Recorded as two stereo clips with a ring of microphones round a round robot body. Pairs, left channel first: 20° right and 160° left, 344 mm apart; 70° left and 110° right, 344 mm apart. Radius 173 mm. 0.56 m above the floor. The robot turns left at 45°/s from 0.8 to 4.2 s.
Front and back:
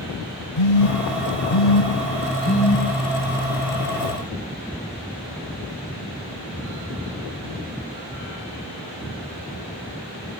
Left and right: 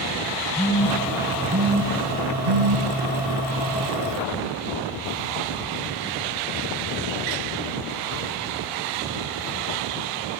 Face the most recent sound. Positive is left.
turn(degrees=-170)